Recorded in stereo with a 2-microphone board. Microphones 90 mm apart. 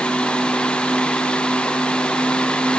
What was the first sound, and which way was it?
Only background noise.